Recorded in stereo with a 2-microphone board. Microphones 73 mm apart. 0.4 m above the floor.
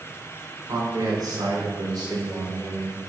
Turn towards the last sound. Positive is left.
turn(degrees=-65)  # may be behind; listen again after turning